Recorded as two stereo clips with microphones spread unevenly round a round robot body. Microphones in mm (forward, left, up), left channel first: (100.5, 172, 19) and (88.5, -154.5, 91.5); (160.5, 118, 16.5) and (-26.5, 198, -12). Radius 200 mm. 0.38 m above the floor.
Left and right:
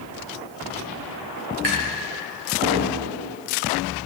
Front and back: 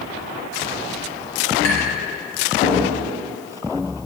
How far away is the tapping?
About 2 m.